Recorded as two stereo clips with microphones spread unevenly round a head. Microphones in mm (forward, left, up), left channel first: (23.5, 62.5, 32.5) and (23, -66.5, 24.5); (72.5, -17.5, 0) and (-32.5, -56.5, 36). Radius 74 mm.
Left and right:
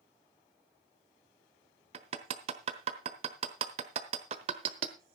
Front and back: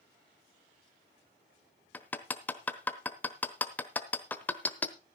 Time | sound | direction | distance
1.9 | hammering | 70° right | 1.1 m